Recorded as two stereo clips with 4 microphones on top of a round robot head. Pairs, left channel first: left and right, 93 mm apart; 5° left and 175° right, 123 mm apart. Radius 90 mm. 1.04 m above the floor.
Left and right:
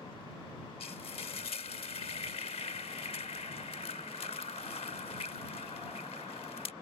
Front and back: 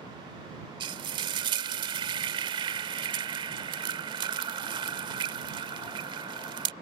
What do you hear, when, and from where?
0.8 s frying: 140° left